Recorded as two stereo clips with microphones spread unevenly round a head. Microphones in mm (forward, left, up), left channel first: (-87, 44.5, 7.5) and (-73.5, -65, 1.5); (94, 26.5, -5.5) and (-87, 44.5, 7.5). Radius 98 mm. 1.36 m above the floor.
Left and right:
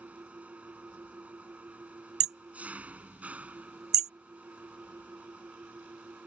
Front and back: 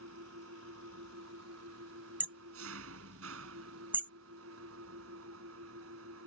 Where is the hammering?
105° right.